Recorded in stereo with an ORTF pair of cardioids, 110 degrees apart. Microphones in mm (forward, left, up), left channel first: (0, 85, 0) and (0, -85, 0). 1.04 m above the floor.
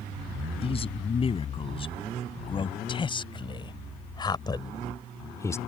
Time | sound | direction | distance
0.6 | a man speaking | 35° left | ?